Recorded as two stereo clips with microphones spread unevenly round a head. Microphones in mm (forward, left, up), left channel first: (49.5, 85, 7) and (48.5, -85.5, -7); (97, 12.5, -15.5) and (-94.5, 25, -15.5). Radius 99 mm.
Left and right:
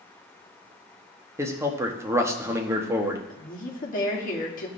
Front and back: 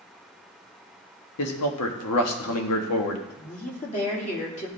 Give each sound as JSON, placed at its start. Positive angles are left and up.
{"t": 1.4, "sound": "a man speaking", "azimuth_deg": -15, "distance_m": 1.4}
{"t": 3.3, "sound": "a woman speaking", "azimuth_deg": 50, "distance_m": 2.5}